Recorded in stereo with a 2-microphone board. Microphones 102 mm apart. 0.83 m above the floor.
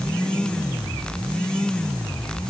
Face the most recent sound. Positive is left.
No sound to turn to.